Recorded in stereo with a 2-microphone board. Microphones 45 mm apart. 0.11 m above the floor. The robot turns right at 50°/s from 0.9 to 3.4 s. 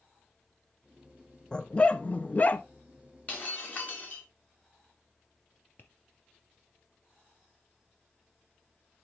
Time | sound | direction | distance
1.5 | a dog barking | 40° left | 0.6 m
3.3 | breaking glass | 30° left (ahead or behind) | 3.5 m
5.8 | tapping | 40° left (ahead or behind) | 2 m